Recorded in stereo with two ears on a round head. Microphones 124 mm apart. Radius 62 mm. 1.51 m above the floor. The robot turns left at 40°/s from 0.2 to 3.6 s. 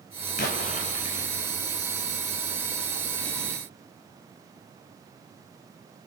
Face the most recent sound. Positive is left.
turn(degrees=-60)